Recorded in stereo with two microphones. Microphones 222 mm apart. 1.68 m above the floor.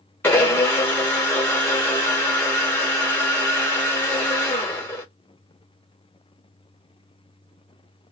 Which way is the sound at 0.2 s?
10° left (ahead or behind).